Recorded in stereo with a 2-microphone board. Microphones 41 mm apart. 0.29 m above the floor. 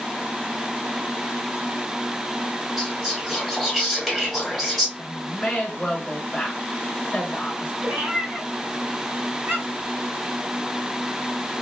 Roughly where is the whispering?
Centre.